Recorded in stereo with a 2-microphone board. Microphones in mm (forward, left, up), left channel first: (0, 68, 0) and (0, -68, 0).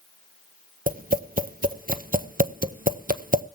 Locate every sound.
0.9 s tapping: 75° right (ahead or behind), 0.7 m